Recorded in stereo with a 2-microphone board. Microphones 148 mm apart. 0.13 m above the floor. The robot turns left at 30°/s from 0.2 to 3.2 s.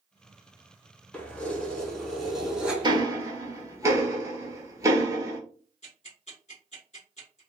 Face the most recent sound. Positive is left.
turn(degrees=50)  # may be behind; listen again after turning